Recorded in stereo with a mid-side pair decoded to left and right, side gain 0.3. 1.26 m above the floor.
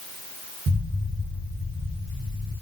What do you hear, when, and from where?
0.7 s an explosion: 70° right, 3 m